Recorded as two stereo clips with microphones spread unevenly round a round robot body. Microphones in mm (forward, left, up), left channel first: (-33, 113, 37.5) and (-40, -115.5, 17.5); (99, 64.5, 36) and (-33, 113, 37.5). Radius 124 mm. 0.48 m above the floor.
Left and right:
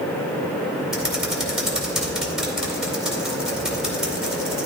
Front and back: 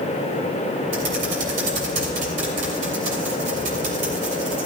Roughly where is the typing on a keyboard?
Behind.